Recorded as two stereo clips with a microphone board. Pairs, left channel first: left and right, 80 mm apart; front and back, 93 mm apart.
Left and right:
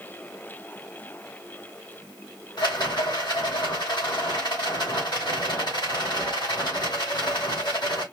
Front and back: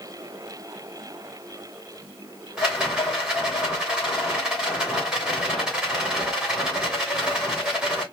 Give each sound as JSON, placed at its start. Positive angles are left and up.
{"t": 2.6, "sound": "a rattle", "azimuth_deg": 95, "distance_m": 2.5}